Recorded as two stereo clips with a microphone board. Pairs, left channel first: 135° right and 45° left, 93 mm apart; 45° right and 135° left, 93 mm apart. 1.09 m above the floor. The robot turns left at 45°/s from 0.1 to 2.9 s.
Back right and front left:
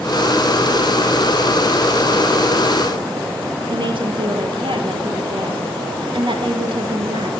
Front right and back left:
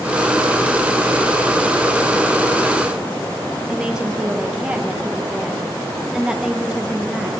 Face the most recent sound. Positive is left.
turn(degrees=55)